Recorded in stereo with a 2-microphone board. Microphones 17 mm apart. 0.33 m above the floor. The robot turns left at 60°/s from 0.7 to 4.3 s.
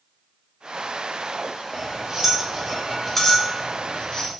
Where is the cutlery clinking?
40° right (ahead or behind), 0.6 m; by 4.3 s 45° left (ahead or behind), 0.6 m.